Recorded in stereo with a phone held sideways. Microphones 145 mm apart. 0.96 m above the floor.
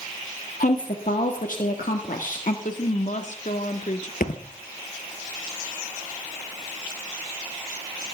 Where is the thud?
65° left (ahead or behind), 2 m.